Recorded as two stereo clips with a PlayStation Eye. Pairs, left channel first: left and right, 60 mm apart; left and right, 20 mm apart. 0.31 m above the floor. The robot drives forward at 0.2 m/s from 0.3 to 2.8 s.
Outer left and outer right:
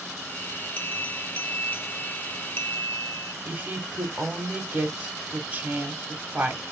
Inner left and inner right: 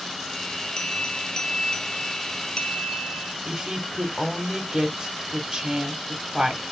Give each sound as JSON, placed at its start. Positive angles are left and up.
{"t": 0.8, "sound": "a bell", "side_deg": 25, "distance_m": 0.8}
{"t": 3.5, "sound": "a woman speaking", "side_deg": -30, "distance_m": 1.4}